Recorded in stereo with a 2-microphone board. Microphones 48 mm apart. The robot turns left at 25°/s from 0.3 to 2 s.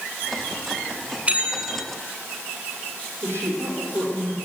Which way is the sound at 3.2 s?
55° right (ahead or behind).